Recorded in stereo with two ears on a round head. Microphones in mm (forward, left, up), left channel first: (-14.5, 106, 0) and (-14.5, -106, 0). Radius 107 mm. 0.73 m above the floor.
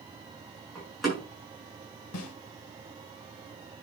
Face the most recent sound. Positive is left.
turn(degrees=75)  # may be behind; listen again after turning